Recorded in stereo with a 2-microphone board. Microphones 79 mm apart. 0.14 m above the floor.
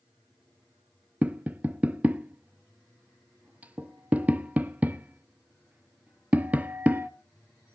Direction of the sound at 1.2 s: 20° right (ahead or behind).